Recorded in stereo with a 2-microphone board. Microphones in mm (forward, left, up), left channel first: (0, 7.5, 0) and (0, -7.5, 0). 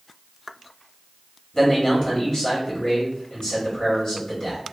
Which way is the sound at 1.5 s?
50° left (ahead or behind).